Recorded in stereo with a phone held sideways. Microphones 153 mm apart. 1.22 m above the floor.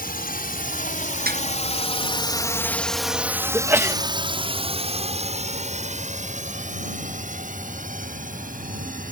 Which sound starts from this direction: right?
A snare drum, at 1.3 s.